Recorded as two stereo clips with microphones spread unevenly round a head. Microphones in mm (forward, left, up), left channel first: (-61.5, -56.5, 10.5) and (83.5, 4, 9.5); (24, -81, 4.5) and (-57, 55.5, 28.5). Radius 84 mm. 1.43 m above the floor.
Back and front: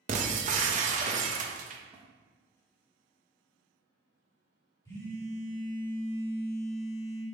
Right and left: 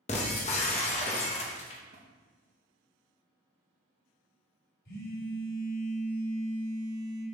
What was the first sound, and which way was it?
Breaking glass, 5° right.